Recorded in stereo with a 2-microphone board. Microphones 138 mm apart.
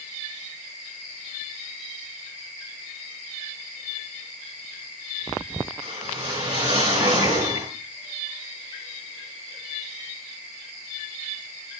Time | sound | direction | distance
5.8 | a whoosh | 40° right (ahead or behind) | 7.5 m